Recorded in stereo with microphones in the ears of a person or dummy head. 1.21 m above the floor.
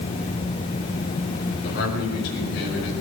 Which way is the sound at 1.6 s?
55° left (ahead or behind).